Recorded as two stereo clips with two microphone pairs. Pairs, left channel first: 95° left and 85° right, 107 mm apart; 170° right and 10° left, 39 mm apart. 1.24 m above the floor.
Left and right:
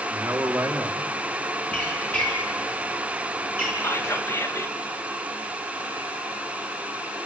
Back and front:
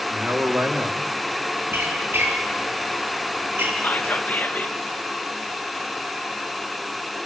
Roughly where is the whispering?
Behind left.